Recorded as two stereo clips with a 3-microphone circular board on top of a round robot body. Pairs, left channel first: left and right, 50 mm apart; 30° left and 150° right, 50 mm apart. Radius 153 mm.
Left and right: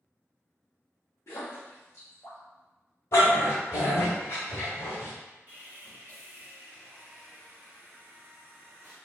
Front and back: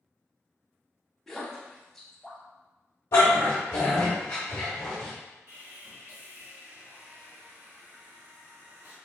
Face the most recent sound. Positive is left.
turn(degrees=-145)